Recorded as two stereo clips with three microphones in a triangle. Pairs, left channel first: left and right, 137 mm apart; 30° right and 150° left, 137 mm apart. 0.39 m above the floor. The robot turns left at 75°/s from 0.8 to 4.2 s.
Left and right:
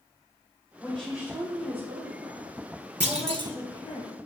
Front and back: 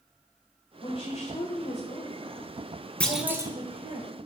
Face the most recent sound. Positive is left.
turn(degrees=160)